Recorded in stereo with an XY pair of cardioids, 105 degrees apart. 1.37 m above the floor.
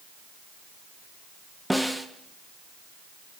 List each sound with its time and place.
1.7 s a snare drum: straight ahead, 1.1 m